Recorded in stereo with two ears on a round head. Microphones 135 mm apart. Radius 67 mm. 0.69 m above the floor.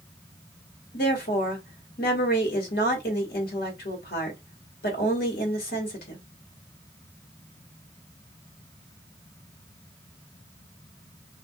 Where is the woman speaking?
70° left (ahead or behind), 1.4 m.